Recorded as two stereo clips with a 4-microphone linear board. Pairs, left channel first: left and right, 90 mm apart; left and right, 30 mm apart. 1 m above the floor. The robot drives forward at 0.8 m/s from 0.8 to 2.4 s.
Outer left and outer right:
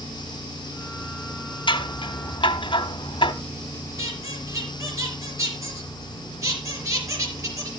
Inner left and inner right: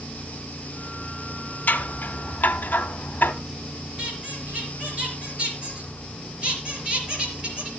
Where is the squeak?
35° right (ahead or behind), 4.5 m.